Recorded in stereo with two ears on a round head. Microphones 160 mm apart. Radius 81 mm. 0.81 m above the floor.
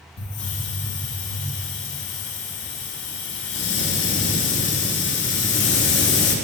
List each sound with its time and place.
0.2 s a hiss: 75° left (ahead or behind), 0.8 m